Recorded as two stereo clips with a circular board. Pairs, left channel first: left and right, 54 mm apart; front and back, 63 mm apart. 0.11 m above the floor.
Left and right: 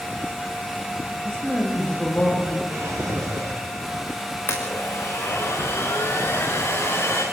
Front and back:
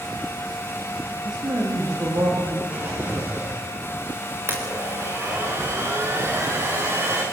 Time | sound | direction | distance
1.2 | a man speaking | 165° left | 7 m
2.7 | a drawer | 125° right | 9.5 m
4.5 | a blender | 135° left | 6 m